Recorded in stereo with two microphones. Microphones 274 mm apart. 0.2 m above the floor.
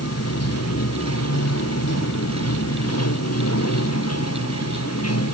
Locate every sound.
0.0 s running water: 60° left (ahead or behind)